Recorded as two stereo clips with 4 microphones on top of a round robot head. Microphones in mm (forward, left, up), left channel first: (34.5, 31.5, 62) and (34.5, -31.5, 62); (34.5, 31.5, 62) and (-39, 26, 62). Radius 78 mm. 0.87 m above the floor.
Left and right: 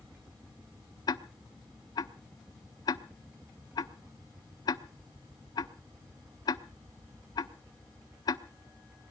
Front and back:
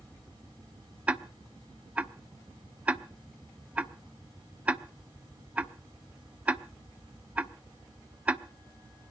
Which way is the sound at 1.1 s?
110° left.